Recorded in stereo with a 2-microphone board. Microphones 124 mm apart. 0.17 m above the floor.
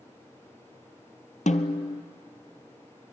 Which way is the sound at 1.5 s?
80° left.